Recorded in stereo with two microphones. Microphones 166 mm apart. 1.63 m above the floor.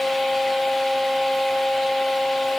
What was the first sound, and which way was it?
Only background noise.